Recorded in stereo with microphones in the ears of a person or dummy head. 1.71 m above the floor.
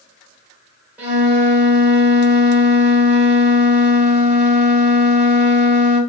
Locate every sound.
1.0 s a flute: 10° right (ahead or behind), 3 m